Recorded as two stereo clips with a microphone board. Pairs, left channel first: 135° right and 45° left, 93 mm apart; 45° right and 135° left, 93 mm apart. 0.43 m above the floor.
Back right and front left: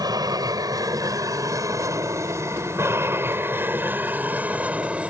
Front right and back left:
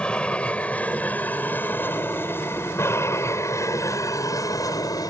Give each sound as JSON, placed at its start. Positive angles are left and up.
{"t": 0.0, "sound": "an aircraft", "azimuth_deg": 30}